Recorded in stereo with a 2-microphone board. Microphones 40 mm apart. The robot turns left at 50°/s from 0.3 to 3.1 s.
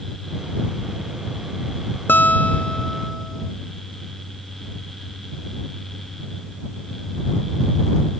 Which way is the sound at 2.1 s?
60° left.